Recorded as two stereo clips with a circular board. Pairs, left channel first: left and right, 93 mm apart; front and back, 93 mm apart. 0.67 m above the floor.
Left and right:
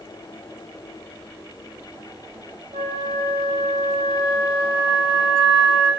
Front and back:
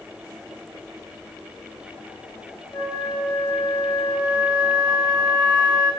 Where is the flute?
75° right, 2 m.